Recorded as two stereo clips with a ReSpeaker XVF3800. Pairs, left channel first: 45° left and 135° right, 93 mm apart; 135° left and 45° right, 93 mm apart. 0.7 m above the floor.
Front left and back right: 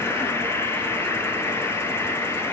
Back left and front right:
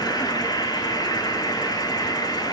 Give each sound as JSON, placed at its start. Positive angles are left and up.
{"t": 0.0, "sound": "an insect", "azimuth_deg": 100, "distance_m": 1.2}